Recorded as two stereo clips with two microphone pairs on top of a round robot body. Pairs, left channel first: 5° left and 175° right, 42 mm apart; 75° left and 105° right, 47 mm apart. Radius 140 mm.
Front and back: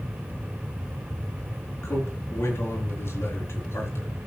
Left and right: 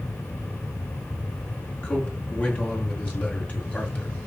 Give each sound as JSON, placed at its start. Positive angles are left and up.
{"t": 1.8, "sound": "a man speaking", "azimuth_deg": 15, "distance_m": 5.0}